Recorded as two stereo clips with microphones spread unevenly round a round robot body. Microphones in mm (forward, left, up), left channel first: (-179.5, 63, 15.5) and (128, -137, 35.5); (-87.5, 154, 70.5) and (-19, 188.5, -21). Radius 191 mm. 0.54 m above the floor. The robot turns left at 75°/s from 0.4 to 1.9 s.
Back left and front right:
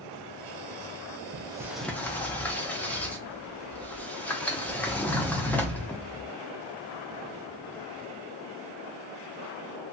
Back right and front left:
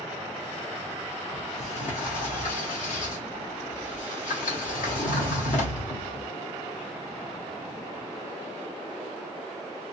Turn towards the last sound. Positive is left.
turn(degrees=-140)